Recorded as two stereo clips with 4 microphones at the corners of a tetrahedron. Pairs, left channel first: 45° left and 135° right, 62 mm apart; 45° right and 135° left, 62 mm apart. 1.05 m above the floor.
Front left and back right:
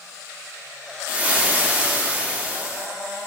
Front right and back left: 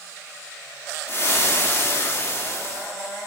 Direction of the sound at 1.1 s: 75° right.